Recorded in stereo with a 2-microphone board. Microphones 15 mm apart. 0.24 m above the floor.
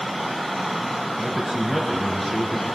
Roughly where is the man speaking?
Centre.